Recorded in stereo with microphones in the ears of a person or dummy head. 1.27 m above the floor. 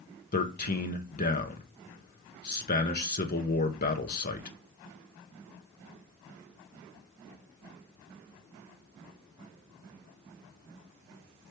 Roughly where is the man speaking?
Left.